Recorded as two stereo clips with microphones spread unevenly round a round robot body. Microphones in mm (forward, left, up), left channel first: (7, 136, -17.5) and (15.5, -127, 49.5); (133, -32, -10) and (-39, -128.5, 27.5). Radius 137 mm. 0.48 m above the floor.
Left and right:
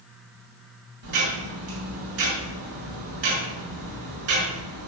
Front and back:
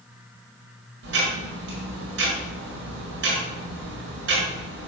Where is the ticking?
130° right, 5 m.